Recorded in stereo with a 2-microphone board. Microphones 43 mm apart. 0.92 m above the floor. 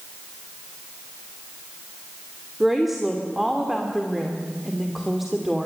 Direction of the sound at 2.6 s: 5° right (ahead or behind).